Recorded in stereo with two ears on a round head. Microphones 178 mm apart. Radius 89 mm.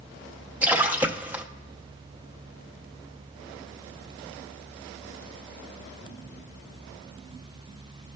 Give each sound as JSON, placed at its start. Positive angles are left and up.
{"t": 0.6, "sound": "a splash", "side_deg": -10, "distance_m": 0.8}